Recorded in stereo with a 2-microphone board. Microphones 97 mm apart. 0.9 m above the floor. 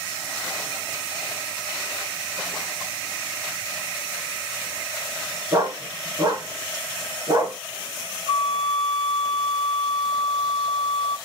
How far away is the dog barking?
About 3 m.